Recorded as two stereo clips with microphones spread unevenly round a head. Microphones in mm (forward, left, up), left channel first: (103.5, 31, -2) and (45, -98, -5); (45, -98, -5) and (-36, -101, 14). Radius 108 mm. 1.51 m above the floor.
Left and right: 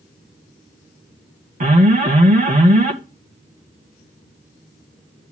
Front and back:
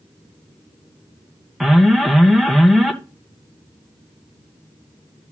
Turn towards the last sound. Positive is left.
turn(degrees=-85)